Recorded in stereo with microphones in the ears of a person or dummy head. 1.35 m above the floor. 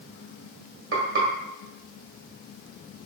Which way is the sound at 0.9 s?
65° right (ahead or behind).